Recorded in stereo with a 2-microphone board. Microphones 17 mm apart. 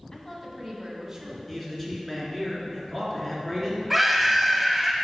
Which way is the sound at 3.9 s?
10° right (ahead or behind).